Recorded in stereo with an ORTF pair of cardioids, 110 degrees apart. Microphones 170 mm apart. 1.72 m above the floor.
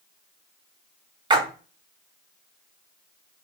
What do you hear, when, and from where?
1.3 s a splash: 25° right, 0.8 m